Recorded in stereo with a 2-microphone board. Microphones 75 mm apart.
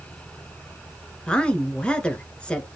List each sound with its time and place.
1.3 s a woman speaking: 15° left (ahead or behind), 1.3 m